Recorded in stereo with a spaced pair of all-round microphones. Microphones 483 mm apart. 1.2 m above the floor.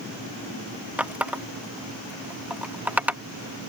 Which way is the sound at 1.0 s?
5° right (ahead or behind).